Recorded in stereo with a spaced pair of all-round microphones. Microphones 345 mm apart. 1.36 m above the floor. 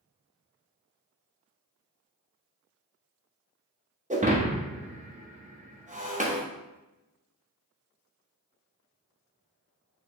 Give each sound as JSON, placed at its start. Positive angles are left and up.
{"t": 4.1, "sound": "breaking glass", "side_deg": -20, "distance_m": 0.8}